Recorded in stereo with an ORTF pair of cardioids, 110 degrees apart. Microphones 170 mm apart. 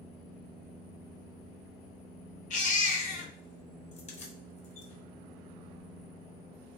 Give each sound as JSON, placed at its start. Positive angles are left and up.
{"t": 2.5, "sound": "a baby crying", "azimuth_deg": 45, "distance_m": 0.9}
{"t": 3.9, "sound": "keys jangling", "azimuth_deg": 40, "distance_m": 0.9}